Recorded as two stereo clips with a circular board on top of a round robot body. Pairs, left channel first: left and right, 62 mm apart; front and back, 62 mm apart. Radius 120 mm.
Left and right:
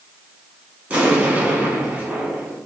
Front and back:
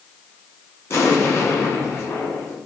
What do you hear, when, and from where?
0.9 s an explosion: 35° right, 1.9 m